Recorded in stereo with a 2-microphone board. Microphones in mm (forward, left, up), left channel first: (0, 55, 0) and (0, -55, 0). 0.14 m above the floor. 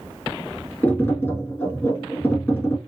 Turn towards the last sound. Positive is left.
turn(degrees=20)  # may be behind; listen again after turning